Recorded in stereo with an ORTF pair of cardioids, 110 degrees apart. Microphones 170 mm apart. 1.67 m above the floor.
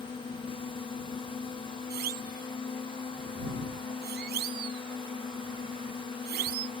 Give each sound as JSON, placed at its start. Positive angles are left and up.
{"t": 0.0, "sound": "a drone", "azimuth_deg": 30}
{"t": 1.9, "sound": "a siren", "azimuth_deg": -70}